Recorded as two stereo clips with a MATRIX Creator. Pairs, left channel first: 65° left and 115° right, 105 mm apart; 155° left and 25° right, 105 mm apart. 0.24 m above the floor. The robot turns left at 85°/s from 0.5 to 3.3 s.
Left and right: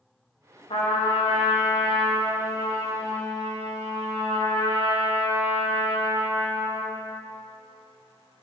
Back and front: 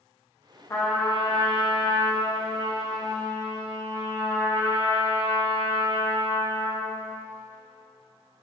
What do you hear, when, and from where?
0.7 s a trumpet: 95° left, 2.5 m; by 7.0 s 125° right, 2.5 m